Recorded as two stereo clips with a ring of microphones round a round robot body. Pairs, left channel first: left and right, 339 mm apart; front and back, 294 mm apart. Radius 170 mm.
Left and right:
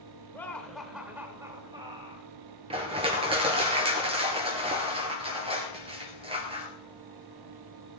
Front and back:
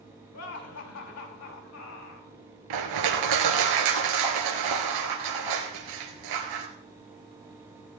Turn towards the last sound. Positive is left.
turn(degrees=-165)